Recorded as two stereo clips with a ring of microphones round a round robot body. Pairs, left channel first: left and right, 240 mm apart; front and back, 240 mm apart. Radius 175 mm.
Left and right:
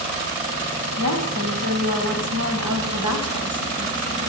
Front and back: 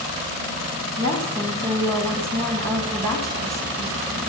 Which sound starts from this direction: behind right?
A woman speaking, at 1.0 s.